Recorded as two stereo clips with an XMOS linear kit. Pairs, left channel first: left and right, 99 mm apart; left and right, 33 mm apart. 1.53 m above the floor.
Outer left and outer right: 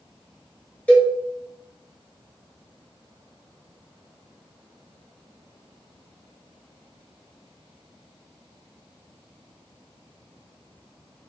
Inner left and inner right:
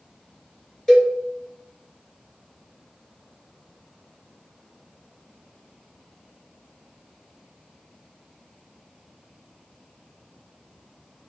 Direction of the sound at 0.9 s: 15° left (ahead or behind).